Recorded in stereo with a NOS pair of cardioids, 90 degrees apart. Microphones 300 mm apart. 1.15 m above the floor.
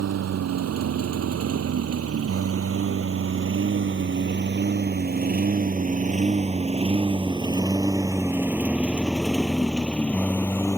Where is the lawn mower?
65° right; by 10.8 s 10° left.